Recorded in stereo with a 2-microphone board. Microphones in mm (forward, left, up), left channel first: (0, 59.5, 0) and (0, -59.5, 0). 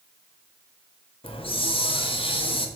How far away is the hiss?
About 0.8 m.